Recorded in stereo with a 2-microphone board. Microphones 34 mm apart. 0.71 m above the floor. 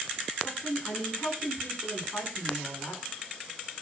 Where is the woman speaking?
85° left, 9 m.